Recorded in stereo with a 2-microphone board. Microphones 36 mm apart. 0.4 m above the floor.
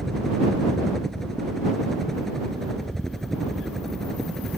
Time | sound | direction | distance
0.0 | a helicopter | 10° left (ahead or behind) | ?